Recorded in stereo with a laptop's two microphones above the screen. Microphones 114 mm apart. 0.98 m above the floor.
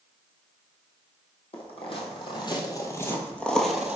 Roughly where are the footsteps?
Left.